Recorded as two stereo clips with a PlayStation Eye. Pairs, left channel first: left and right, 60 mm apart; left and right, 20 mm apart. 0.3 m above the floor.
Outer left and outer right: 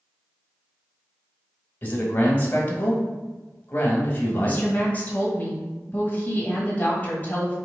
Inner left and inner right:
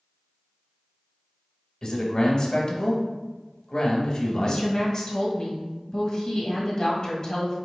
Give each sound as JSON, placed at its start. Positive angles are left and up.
{"t": 1.8, "sound": "a man speaking", "side_deg": 30, "distance_m": 1.3}
{"t": 4.4, "sound": "a woman speaking", "side_deg": 30, "distance_m": 1.5}